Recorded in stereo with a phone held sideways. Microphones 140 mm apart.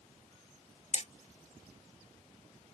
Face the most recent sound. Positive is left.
turn(degrees=50)  # may be behind; listen again after turning